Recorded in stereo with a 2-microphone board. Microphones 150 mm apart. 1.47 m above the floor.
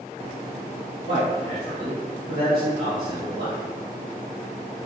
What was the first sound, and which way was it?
A man speaking, 45° right (ahead or behind).